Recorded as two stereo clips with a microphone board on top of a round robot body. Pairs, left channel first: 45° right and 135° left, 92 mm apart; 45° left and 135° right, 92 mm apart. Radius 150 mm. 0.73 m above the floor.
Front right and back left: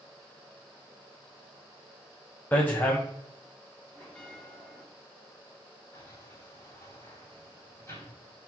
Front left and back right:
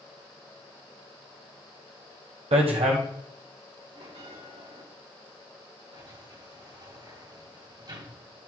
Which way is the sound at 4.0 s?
125° right.